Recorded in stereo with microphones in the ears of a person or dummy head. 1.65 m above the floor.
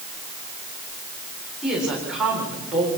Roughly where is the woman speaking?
Centre.